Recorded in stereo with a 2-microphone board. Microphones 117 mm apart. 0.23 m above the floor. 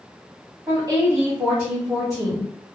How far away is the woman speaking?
About 1.4 m.